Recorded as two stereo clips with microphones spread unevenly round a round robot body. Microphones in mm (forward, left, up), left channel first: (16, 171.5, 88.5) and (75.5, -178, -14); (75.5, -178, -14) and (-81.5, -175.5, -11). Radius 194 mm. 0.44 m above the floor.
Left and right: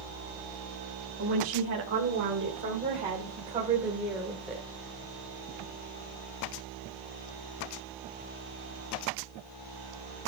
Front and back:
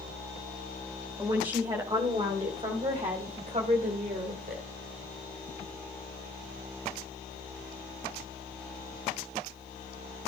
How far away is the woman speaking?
About 3 m.